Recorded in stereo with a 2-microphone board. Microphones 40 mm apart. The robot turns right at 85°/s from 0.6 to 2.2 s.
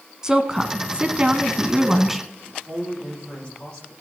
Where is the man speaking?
25° left (ahead or behind), 8 m.